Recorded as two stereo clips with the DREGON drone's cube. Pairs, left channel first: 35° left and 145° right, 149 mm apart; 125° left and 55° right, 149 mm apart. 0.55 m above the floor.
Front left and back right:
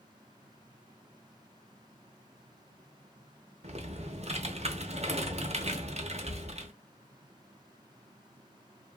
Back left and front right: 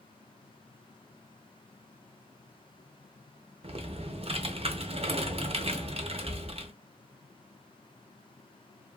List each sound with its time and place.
3.6 s typing on a keyboard: 105° right, 0.6 m